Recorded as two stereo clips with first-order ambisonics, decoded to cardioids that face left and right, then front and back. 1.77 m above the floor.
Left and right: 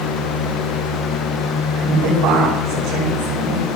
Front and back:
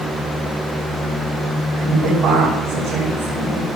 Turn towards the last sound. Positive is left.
turn(degrees=-105)